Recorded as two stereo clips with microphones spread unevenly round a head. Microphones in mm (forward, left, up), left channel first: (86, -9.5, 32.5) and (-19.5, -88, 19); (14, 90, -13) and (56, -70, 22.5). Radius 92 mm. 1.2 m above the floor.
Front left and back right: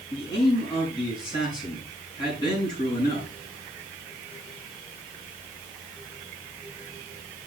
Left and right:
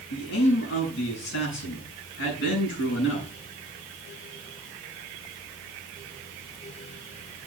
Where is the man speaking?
105° left, 7 m.